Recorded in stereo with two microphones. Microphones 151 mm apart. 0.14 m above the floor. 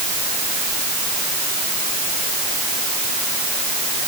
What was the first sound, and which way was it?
Only background noise.